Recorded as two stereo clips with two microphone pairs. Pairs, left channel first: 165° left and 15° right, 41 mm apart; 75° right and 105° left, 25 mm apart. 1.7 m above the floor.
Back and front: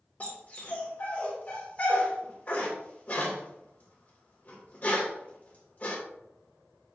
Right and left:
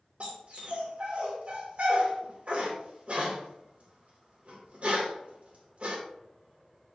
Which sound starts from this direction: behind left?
A dog barking, at 0.2 s.